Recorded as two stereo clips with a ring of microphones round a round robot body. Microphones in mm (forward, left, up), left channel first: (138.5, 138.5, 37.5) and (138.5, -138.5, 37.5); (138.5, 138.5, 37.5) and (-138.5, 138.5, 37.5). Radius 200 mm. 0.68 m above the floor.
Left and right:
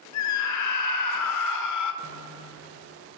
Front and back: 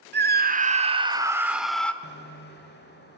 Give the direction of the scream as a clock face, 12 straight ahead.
8 o'clock.